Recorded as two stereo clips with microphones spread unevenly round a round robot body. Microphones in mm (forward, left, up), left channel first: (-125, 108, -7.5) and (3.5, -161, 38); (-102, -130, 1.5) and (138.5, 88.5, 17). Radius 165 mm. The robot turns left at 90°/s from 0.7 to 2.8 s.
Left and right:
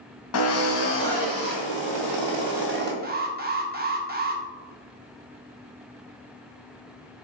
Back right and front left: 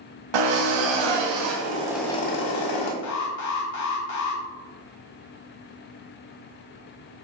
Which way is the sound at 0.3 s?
70° left.